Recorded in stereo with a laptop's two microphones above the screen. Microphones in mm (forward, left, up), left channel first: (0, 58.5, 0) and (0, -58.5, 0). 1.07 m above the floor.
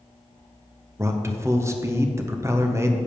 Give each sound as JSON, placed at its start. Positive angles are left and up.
{"t": 1.0, "sound": "a man speaking", "side_deg": -25, "distance_m": 0.6}